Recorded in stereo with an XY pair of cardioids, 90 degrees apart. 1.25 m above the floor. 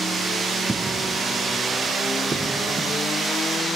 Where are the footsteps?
20° right.